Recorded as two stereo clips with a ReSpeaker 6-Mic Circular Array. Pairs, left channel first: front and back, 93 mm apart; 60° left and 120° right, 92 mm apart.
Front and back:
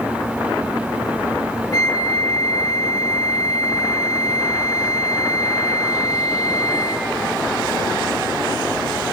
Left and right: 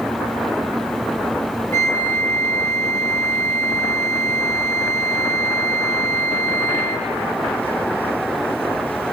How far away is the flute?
About 2 m.